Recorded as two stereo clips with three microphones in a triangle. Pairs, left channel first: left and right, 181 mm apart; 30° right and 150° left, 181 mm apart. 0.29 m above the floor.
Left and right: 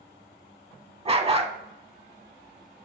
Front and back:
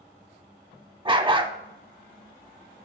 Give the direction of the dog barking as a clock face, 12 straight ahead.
5 o'clock.